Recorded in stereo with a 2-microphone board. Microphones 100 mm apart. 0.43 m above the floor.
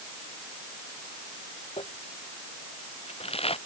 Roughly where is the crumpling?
Left.